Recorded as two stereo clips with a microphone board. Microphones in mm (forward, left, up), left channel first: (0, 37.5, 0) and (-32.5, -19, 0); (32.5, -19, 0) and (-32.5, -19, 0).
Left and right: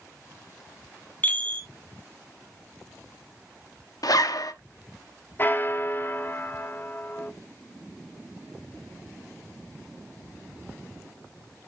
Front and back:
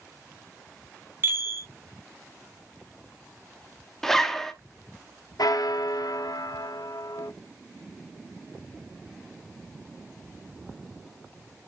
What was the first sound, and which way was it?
A chime, 130° left.